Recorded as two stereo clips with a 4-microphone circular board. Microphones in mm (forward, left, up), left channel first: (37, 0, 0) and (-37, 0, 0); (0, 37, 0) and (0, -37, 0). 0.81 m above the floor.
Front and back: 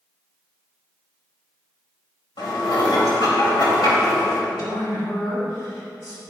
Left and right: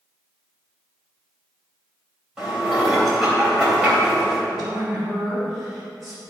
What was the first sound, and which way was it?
Dishes clattering, 5° right.